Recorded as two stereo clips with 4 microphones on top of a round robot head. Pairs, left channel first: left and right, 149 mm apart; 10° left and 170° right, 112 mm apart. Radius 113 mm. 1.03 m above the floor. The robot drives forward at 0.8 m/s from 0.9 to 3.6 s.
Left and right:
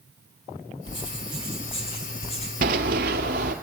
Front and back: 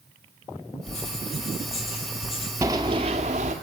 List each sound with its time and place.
0.9 s writing: 35° left, 5 m; by 2.5 s 45° left, 4 m
2.6 s running footsteps: 95° right, 1.2 m; by 3.5 s 135° right, 1.5 m